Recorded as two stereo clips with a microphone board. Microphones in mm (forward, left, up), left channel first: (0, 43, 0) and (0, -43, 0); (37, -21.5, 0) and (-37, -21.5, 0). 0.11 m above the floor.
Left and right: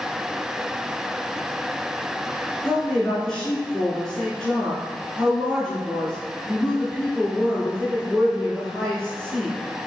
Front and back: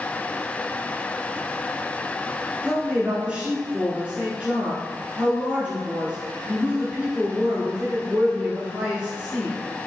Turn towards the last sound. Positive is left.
turn(degrees=160)